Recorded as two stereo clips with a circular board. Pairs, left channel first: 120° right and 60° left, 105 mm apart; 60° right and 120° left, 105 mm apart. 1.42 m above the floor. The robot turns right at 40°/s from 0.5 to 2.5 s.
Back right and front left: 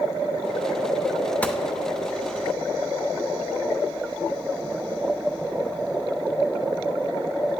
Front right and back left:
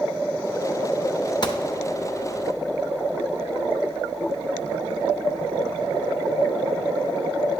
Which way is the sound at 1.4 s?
55° right.